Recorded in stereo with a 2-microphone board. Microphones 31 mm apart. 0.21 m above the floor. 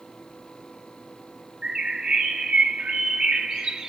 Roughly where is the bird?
Right.